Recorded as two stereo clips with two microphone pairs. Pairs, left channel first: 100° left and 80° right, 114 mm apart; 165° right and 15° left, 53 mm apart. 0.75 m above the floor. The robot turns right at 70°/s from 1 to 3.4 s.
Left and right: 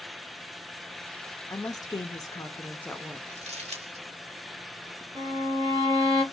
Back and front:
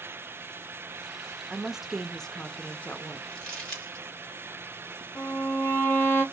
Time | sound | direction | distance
1.5 | a woman speaking | 70° left | 0.6 m
3.3 | crumpling | 105° right | 1.6 m
5.2 | a violin | 135° right | 1.8 m